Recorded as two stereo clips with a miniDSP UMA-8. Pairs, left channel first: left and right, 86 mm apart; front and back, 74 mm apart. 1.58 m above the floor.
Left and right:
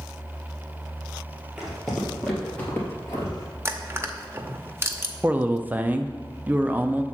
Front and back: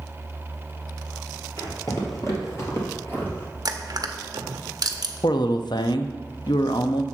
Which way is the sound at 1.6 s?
5° right.